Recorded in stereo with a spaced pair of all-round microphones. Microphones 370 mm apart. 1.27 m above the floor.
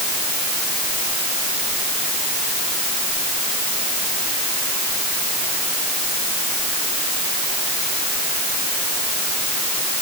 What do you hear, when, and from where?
Only background noise.